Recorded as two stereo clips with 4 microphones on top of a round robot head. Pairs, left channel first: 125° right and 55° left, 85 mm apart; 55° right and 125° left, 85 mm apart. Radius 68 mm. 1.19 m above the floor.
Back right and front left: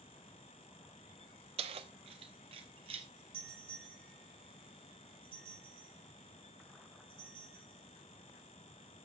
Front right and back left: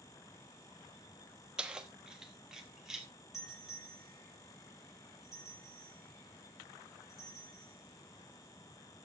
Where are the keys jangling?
40° left, 0.9 m; by 3.1 s 35° left, 2.5 m.